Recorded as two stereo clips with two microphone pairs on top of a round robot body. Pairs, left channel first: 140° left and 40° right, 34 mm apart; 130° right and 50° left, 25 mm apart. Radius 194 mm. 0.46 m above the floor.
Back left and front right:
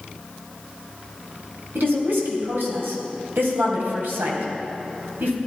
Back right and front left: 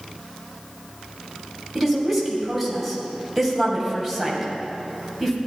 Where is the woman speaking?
35° right, 3.5 m.